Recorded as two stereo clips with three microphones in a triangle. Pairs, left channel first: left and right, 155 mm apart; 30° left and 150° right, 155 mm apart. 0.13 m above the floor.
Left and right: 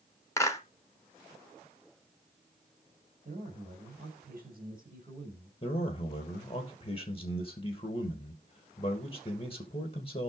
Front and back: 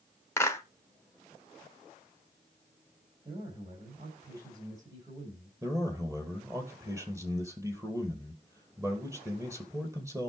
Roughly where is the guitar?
No guitar in this recording.